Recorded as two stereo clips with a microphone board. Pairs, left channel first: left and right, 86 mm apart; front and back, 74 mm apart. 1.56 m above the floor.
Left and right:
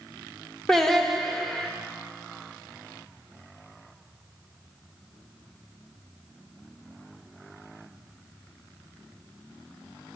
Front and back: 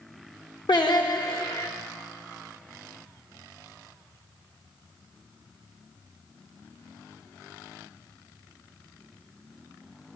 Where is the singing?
5° left, 0.7 m.